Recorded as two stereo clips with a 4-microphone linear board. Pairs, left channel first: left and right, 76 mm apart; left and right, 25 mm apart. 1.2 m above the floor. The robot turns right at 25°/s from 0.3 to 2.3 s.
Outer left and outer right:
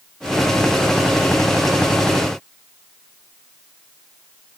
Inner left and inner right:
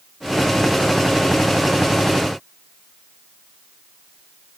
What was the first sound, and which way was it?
Only background noise.